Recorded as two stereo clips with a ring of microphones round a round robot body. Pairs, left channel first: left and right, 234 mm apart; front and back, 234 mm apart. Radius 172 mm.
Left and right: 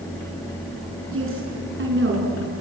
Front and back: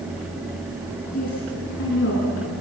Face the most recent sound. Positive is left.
turn(degrees=-50)